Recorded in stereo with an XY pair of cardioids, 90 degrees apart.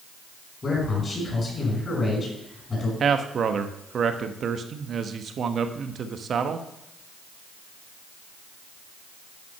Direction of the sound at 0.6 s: 40° left.